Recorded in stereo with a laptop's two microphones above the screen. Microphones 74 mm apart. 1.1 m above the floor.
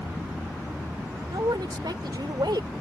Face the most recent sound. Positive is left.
turn(degrees=-75)  # may be behind; listen again after turning